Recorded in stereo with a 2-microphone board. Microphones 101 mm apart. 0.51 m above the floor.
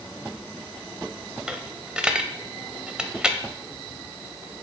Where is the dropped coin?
10° right (ahead or behind), 0.6 m.